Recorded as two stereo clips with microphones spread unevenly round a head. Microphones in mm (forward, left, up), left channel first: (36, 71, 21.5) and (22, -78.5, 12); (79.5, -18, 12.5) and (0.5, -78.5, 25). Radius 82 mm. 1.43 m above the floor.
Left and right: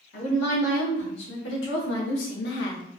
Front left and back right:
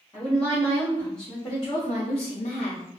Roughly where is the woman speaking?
Behind left.